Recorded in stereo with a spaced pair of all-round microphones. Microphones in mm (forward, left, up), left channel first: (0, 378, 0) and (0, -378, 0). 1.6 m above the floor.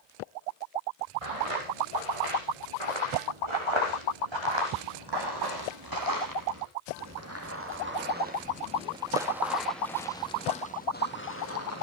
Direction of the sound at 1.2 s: 45° right (ahead or behind).